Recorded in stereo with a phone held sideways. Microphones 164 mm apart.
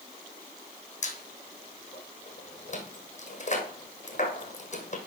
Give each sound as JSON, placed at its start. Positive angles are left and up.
{"t": 1.0, "sound": "a squeak", "side_deg": 45, "distance_m": 1.8}